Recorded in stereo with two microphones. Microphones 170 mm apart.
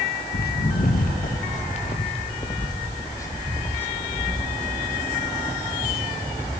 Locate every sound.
0.3 s footsteps: 70° left (ahead or behind), 1.9 m; by 6.5 s 5° right (ahead or behind), 4.5 m